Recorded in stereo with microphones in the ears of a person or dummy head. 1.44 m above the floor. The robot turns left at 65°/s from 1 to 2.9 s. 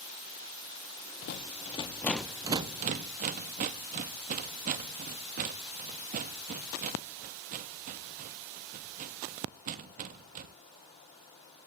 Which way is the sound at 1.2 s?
55° left (ahead or behind).